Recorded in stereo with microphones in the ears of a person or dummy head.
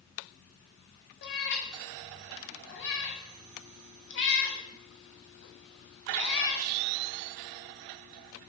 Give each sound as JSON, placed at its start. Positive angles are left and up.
{"t": 1.2, "sound": "a cat meowing", "side_deg": 55, "distance_m": 0.7}